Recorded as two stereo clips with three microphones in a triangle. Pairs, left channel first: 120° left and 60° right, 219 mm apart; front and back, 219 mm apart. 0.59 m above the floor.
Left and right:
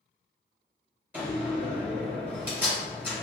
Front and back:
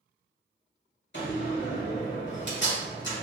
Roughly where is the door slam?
Ahead.